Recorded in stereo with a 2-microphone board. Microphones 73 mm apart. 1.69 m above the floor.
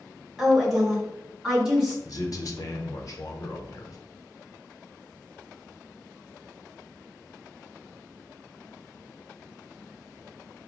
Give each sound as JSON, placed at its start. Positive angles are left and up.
{"t": 0.4, "sound": "a woman speaking", "side_deg": -5, "distance_m": 1.4}
{"t": 2.0, "sound": "a man speaking", "side_deg": 50, "distance_m": 0.8}